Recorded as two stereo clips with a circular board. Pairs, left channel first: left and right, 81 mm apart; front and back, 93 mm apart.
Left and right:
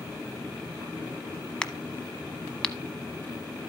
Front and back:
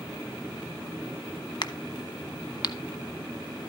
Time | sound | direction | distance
1.6 | a crack | 15° left | 0.8 m